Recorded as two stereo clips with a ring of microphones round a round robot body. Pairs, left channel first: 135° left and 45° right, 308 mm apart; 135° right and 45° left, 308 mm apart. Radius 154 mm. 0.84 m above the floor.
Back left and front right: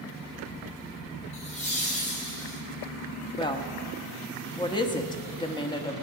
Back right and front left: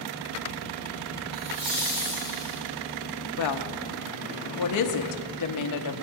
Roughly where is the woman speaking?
Behind right.